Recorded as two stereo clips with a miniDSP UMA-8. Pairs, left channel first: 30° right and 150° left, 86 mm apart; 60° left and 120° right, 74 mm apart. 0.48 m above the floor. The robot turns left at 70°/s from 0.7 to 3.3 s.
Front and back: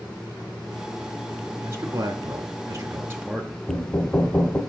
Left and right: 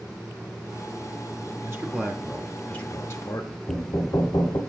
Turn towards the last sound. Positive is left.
turn(degrees=40)